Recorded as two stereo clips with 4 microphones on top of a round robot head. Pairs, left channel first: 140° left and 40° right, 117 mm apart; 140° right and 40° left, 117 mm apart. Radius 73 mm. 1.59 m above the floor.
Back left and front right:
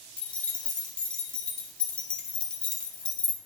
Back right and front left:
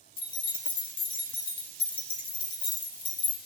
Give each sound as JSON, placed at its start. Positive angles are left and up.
{"t": 0.2, "sound": "keys jangling", "azimuth_deg": -145, "distance_m": 0.5}